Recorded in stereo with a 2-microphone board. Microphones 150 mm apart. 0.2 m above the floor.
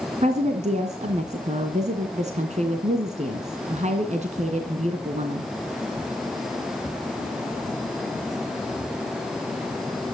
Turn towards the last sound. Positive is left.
turn(degrees=-50)  # may be behind; listen again after turning